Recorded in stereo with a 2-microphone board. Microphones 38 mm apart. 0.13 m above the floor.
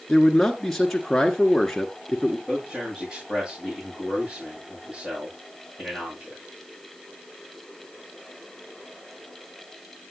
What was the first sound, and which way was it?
A man speaking, 10° left (ahead or behind).